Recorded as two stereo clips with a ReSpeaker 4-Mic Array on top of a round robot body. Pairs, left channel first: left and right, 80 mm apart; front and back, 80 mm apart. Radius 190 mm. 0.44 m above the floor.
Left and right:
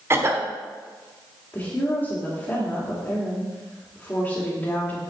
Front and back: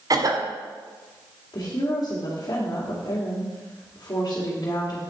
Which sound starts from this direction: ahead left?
A woman speaking, at 1.5 s.